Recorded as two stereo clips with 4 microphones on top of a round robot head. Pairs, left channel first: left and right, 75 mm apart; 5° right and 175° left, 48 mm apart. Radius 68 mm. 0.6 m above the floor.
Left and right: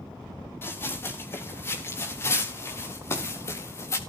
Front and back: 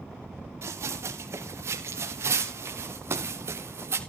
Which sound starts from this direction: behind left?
Running footsteps, at 0.6 s.